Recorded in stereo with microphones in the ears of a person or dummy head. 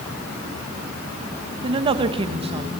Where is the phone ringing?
No phone ringing in this recording.